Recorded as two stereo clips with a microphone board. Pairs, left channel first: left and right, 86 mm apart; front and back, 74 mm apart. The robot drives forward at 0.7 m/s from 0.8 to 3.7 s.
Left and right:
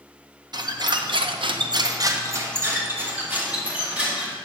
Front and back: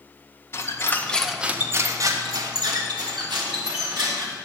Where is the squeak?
55° right, 0.6 m; by 4.3 s 165° right, 1.8 m.